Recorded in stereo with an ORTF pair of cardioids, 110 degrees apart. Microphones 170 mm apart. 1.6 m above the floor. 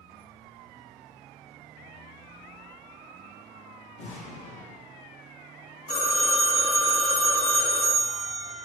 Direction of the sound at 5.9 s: 45° left.